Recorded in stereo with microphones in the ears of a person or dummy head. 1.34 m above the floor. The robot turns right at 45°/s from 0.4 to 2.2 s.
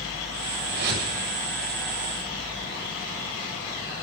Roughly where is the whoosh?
Right.